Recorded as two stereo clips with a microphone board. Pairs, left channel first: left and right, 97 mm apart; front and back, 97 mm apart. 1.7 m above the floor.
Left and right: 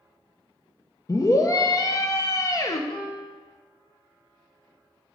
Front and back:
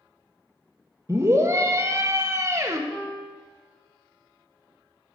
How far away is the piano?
About 2 m.